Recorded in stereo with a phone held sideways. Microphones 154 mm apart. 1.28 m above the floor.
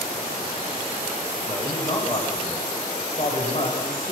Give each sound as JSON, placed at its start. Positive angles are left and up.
{"t": 1.5, "sound": "a man speaking", "side_deg": 25, "distance_m": 6.5}